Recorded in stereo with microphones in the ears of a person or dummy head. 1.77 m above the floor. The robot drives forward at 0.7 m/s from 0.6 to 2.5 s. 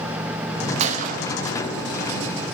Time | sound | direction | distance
0.8 | a gunshot | 40° right (ahead or behind) | 1.0 m